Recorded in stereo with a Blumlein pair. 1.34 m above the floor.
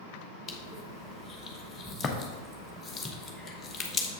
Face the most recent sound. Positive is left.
turn(degrees=15)